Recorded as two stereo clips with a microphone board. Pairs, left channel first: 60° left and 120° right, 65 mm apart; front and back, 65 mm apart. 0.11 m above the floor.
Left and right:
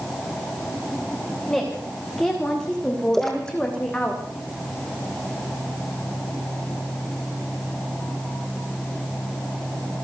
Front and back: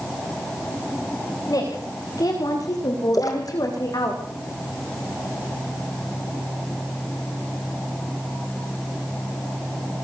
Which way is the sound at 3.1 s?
25° right.